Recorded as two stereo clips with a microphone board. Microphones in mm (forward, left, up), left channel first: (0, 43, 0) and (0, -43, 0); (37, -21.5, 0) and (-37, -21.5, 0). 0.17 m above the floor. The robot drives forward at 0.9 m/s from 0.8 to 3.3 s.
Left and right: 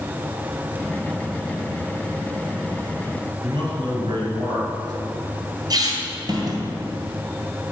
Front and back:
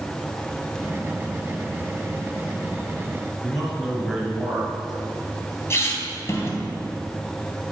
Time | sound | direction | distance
3.4 | a man speaking | 95° right | 3 m
5.7 | a squeak | 55° right | 2.0 m